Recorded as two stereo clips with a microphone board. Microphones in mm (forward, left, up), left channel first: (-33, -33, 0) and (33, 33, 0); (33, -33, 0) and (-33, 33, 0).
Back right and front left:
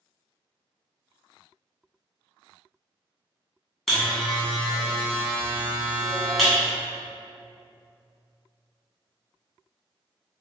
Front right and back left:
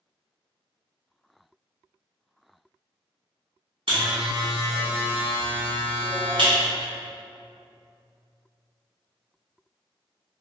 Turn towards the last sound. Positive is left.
turn(degrees=135)